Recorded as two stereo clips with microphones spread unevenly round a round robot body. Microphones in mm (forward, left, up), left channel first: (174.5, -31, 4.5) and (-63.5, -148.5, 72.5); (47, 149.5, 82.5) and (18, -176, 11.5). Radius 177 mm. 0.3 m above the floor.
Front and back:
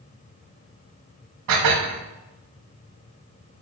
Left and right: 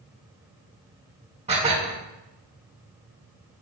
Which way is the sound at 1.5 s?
165° right.